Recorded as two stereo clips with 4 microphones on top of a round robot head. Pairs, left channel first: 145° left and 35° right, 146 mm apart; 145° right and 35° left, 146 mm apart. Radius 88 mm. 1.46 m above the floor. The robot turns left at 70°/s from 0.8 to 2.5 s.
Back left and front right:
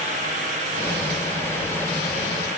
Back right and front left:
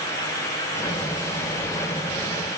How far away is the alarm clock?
I don't hear an alarm clock.